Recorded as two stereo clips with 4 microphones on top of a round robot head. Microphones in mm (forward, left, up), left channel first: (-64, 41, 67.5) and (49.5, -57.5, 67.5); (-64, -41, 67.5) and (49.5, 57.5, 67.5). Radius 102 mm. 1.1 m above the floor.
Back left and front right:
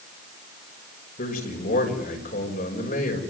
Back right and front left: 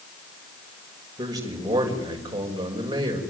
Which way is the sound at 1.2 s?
105° left.